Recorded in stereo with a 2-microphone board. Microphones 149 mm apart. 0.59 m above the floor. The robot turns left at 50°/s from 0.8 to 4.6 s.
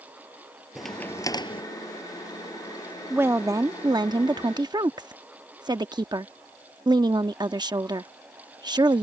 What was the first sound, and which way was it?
A crack, straight behind.